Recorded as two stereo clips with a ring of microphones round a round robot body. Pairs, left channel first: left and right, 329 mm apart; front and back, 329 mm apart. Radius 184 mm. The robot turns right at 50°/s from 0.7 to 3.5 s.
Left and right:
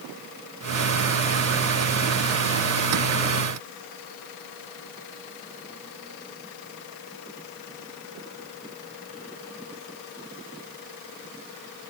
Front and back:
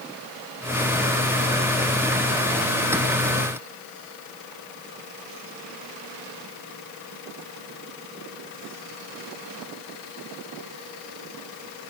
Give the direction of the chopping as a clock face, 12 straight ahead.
I don't hear chopping.